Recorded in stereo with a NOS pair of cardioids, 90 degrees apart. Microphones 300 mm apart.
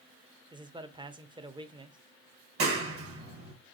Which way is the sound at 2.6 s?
45° right.